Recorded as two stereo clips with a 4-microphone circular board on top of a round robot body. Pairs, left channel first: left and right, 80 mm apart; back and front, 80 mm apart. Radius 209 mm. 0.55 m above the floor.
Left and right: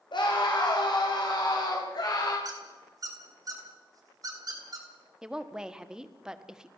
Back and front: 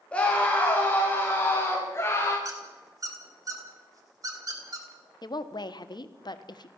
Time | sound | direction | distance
0.1 | a scream | 105° left | 4 m
2.5 | a squeak | 45° right | 3.5 m
5.2 | a woman speaking | 170° right | 1.7 m